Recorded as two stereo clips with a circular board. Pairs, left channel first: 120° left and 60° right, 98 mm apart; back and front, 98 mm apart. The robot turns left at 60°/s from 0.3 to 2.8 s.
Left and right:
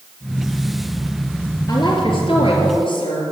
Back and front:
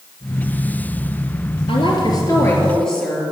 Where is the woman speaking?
165° left, 3.5 m; by 3.2 s 95° left, 3.5 m.